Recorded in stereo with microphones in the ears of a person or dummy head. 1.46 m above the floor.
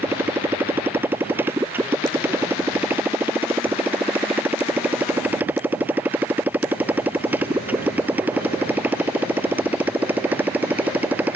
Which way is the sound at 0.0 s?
15° right (ahead or behind).